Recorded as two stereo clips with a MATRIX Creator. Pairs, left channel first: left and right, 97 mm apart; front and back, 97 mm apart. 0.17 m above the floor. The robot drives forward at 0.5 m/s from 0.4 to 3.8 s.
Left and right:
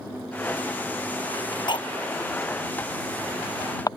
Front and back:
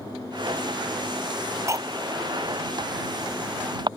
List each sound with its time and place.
1.7 s cutlery clinking: 120° left; by 3.9 s 140° left